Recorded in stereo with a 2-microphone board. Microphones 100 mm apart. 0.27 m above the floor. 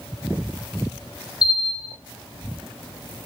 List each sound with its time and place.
1.4 s a bell: 10° right (ahead or behind), 1.2 m